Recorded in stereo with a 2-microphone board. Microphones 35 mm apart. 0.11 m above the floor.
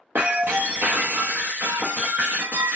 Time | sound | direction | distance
0.1 | breaking glass | 90° right | 0.7 m